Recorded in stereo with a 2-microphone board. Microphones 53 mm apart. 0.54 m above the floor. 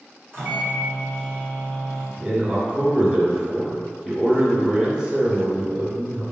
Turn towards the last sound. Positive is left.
turn(degrees=-20)  # may be behind; listen again after turning